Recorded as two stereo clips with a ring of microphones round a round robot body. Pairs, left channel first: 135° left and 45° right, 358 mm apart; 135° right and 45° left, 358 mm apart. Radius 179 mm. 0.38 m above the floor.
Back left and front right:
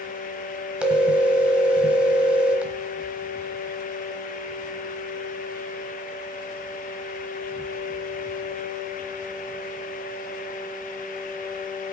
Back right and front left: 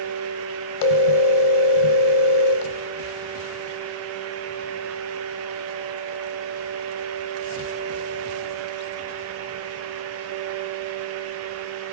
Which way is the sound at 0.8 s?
130° right.